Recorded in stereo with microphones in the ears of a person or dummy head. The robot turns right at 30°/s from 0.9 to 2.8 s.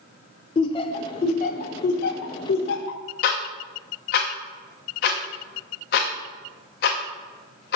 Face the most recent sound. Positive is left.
turn(degrees=45)  # may be behind; listen again after turning